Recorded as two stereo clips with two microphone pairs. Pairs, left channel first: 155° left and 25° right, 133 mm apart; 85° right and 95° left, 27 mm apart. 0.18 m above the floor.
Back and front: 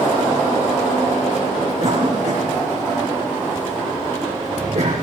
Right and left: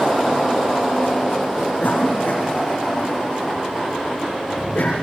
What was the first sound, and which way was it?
A cough, 60° right.